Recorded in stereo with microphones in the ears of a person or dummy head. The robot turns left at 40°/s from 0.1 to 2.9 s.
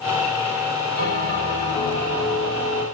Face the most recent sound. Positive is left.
turn(degrees=-10)